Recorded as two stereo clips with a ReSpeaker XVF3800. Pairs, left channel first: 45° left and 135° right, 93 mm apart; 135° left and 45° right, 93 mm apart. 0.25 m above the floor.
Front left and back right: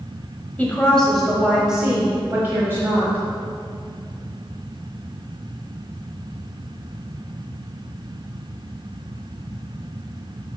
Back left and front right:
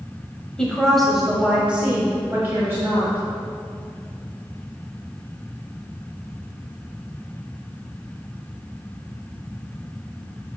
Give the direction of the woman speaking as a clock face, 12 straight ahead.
10 o'clock.